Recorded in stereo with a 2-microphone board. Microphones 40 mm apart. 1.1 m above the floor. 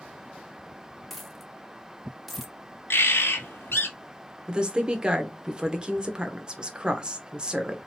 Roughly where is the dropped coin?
Centre.